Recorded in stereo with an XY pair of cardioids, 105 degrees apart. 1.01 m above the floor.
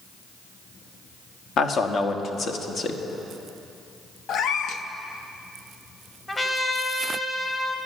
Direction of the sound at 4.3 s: 70° left.